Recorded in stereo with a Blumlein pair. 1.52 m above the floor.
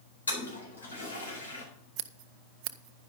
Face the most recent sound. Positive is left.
turn(degrees=-40)